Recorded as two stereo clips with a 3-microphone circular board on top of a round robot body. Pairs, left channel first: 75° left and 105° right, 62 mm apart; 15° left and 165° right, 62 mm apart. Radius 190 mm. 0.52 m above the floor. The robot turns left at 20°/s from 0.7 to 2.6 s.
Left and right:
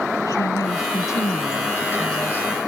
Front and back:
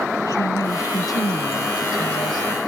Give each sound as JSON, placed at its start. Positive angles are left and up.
{"t": 0.2, "sound": "a woman speaking", "azimuth_deg": 45}